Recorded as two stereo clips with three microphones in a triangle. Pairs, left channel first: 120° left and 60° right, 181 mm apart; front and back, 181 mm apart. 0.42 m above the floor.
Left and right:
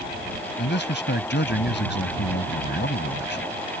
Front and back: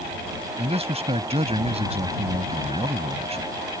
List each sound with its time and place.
0.6 s a man speaking: 125° left